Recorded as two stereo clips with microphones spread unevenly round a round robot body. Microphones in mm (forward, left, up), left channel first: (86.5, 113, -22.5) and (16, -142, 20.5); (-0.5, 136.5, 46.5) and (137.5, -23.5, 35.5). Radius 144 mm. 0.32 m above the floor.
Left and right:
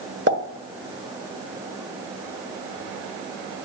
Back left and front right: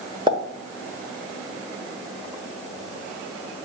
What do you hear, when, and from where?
0.3 s a pop: 90° right, 1.3 m